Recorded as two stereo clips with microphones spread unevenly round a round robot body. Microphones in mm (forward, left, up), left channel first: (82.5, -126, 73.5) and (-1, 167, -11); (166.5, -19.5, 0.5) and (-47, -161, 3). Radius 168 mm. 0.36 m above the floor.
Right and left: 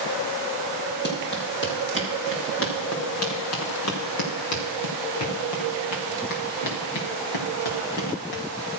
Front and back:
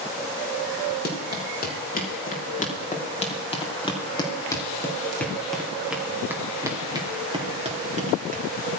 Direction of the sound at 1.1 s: 20° right.